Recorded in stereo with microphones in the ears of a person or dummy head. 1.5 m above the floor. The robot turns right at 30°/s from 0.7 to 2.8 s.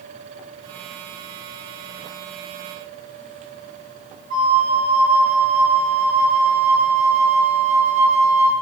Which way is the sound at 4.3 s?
60° right (ahead or behind).